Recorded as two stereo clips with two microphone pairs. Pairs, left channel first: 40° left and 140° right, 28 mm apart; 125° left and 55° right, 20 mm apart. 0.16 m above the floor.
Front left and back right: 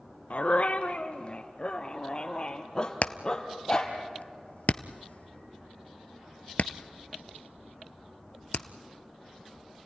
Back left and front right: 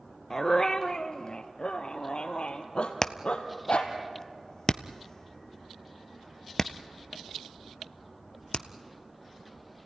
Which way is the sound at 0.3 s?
65° left.